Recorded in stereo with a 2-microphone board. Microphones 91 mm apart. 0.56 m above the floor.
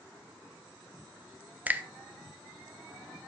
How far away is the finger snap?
About 0.6 m.